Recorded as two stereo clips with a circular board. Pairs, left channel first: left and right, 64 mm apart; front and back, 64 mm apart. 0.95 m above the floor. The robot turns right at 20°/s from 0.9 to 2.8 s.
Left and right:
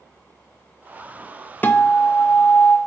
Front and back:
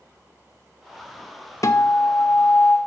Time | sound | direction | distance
1.6 | a guitar | 30° left | 0.7 m